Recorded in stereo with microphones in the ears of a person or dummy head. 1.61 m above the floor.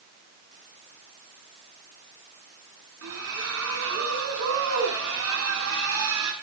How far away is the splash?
About 6 m.